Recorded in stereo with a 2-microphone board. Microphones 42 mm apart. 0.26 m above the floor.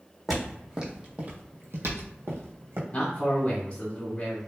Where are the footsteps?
Centre (ahead or behind), 0.9 m; by 2.8 s 70° right (ahead or behind), 1.0 m.